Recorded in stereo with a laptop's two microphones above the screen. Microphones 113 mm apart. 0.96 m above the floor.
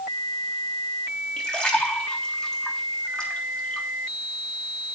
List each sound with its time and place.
1.4 s a splash: 10° left (ahead or behind), 3.5 m